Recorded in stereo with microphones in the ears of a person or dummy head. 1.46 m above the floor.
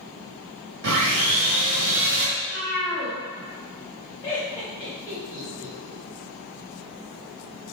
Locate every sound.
0.8 s sawing: 70° right (ahead or behind), 1.5 m
2.4 s a cat meowing: 50° left (ahead or behind), 1.5 m
4.2 s laughter: 20° left (ahead or behind), 1.8 m